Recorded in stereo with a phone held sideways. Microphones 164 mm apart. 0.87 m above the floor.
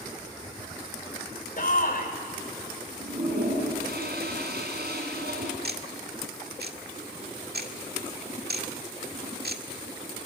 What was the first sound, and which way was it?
A shout, 60° left (ahead or behind).